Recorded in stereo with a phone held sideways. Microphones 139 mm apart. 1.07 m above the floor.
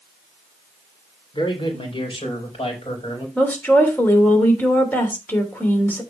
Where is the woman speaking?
15° left (ahead or behind), 3 m.